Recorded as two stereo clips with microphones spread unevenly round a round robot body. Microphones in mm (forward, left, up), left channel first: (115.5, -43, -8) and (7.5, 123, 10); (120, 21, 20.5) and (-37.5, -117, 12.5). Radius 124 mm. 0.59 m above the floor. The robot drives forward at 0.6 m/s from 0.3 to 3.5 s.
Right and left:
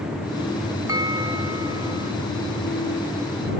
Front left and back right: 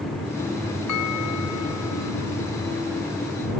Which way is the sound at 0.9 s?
50° left.